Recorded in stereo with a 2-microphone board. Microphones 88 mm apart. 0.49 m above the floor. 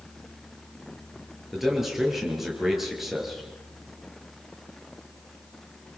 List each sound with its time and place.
1.5 s a man speaking: centre (ahead or behind), 8 m